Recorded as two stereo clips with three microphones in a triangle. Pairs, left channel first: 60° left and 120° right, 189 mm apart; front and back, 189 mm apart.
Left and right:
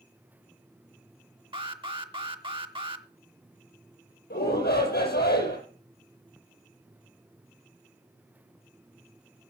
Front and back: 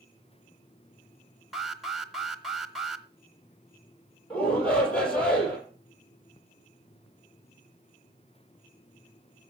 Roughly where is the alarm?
Right.